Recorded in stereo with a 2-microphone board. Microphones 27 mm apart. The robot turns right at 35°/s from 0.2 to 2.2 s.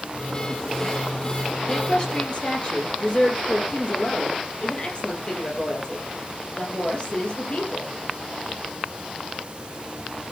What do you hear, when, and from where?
1.7 s a woman speaking: 20° left (ahead or behind), 5.5 m; by 7.9 s 35° left (ahead or behind), 5.5 m